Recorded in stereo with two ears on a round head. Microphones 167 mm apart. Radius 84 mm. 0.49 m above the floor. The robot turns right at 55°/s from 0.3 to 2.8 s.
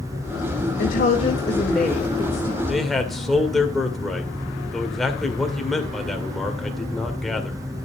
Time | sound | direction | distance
0.8 | a woman speaking | 120° left | 2 m
2.7 | a man speaking | 5° right (ahead or behind) | 1.8 m